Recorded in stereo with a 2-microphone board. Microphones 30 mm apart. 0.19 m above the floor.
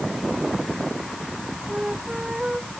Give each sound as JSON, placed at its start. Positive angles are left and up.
{"t": 1.7, "sound": "a flute", "side_deg": -25}